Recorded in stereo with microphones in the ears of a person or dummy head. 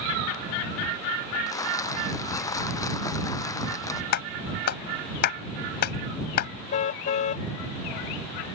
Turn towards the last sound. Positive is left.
turn(degrees=45)  # may be behind; listen again after turning